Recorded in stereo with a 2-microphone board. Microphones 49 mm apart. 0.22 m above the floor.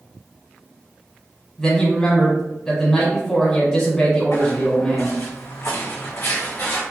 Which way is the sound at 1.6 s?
15° left (ahead or behind).